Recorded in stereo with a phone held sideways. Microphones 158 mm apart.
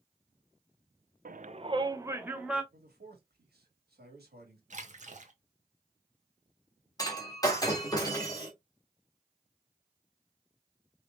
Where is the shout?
65° right (ahead or behind), 0.5 m; by 2.6 s 5° right (ahead or behind), 1.3 m.